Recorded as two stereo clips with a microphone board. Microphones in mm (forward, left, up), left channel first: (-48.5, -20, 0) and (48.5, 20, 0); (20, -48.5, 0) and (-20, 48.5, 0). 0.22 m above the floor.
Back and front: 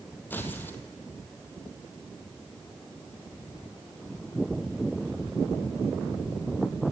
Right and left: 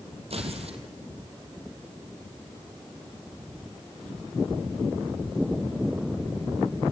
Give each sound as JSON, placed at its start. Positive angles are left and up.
{"t": 0.3, "sound": "tearing paper", "azimuth_deg": 130, "distance_m": 2.0}